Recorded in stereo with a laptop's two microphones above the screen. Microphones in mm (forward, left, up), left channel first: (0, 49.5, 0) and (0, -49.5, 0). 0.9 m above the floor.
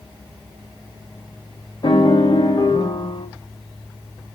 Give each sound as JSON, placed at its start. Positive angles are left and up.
{"t": 1.8, "sound": "a piano", "side_deg": 55, "distance_m": 1.4}